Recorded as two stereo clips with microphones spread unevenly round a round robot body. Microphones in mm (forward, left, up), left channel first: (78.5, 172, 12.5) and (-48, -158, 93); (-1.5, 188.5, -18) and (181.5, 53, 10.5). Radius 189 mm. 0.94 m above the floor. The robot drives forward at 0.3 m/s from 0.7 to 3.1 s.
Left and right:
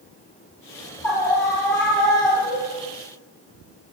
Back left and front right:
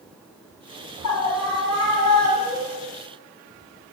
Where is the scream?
155° left, 7.5 m.